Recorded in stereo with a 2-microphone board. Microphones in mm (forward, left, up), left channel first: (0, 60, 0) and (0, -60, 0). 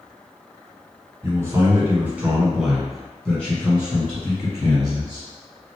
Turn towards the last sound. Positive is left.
turn(degrees=25)  # may be behind; listen again after turning